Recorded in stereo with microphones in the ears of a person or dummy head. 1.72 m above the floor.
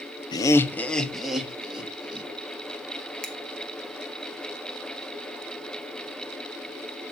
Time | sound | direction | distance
0.3 | laughter | 25° left (ahead or behind) | 1.0 m
3.2 | a finger snap | centre (ahead or behind) | 1.5 m